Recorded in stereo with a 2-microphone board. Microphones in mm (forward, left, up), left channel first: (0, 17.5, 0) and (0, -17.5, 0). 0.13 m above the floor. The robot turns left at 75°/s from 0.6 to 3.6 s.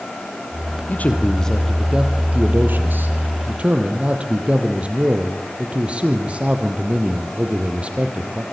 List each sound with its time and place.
0.9 s a man speaking: 60° left, 3.5 m; by 8.4 s 145° right, 3.5 m